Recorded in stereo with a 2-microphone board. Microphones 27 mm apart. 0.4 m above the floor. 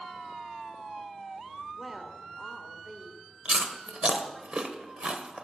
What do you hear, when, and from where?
1.8 s a woman speaking: 5° right (ahead or behind), 1.3 m
3.5 s chewing: 45° right (ahead or behind), 0.9 m